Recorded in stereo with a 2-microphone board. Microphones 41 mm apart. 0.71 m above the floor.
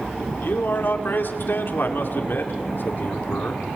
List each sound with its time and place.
0.4 s a man speaking: 55° left (ahead or behind), 2.5 m